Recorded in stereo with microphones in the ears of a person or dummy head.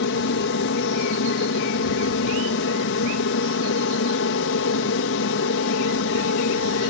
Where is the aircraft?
60° left (ahead or behind).